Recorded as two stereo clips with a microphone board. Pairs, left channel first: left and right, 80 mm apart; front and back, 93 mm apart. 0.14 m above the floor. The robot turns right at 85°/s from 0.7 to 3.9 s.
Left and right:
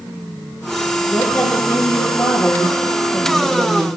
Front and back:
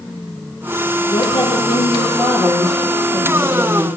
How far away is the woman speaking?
About 4.5 m.